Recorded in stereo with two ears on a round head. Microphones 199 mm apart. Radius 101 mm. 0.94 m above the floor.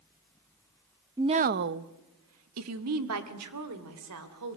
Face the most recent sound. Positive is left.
turn(degrees=-85)